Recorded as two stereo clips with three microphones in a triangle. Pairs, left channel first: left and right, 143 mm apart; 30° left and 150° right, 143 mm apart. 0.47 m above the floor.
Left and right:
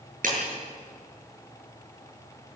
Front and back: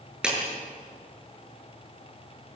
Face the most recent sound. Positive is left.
turn(degrees=-65)